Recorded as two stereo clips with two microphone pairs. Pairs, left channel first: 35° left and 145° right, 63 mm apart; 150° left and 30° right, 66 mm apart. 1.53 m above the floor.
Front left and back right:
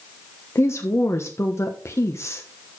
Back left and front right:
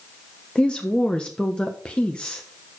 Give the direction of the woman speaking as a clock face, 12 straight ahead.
9 o'clock.